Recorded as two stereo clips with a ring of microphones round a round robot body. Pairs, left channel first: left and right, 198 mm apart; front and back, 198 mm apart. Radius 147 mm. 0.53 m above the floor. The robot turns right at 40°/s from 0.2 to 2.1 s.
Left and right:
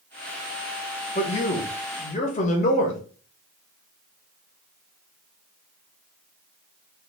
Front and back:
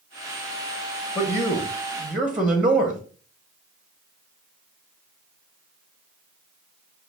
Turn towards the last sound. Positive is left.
turn(degrees=100)